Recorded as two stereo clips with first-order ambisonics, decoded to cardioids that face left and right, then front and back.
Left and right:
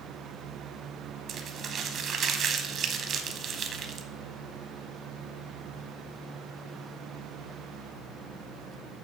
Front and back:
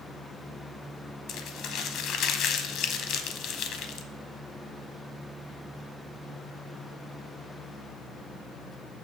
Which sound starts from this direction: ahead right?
Crumpling, at 1.3 s.